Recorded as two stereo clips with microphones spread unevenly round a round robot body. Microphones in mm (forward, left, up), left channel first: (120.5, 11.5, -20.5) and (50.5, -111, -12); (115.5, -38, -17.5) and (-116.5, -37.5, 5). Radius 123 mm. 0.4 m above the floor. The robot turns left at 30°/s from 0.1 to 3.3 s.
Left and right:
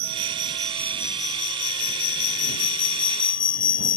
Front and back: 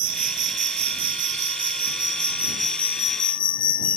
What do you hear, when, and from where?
0.0 s an insect: 165° left; by 4.0 s 70° left